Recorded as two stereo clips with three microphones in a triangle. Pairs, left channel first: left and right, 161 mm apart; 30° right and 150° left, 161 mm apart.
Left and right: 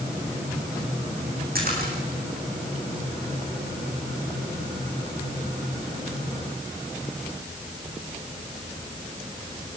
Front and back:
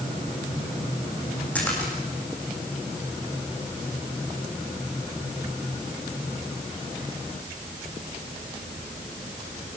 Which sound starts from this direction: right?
A splash, at 1.6 s.